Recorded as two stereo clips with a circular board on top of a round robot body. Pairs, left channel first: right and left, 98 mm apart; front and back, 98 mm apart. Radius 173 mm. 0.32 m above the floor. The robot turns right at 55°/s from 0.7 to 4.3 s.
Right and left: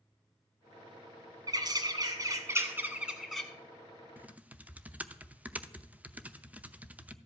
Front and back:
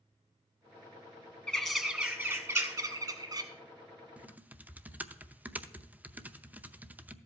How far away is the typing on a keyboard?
About 0.8 m.